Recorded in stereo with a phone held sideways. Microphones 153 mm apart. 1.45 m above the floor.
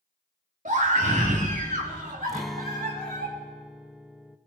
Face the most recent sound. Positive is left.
turn(degrees=0)  # may be behind; listen again after turning